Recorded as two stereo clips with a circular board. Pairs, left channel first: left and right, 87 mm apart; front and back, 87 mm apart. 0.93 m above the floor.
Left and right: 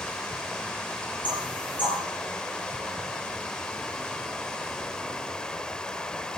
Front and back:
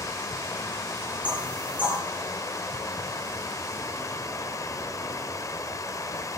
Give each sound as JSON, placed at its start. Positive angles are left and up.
{"t": 0.0, "sound": "running water", "azimuth_deg": 15, "distance_m": 0.8}
{"t": 1.2, "sound": "knocking", "azimuth_deg": 105, "distance_m": 10.0}